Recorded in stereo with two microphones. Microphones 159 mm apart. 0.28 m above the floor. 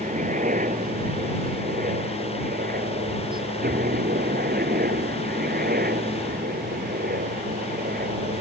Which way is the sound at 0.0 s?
55° right (ahead or behind).